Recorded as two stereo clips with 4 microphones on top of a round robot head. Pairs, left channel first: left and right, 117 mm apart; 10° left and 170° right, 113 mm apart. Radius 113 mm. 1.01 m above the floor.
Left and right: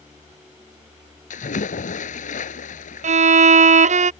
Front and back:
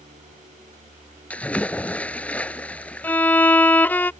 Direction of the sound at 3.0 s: 70° right.